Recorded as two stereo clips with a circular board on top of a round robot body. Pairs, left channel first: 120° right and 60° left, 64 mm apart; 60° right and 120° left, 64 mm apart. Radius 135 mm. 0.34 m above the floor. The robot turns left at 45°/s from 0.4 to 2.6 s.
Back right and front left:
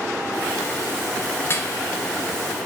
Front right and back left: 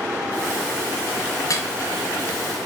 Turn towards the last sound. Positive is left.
turn(degrees=-125)